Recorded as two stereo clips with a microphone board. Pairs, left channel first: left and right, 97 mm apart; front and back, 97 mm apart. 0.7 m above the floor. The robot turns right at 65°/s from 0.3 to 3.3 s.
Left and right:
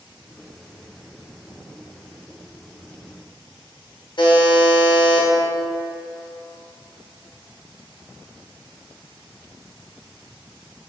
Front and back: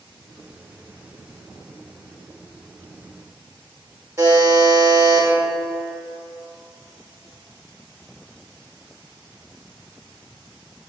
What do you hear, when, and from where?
4.2 s a buzzer: 125° left, 0.7 m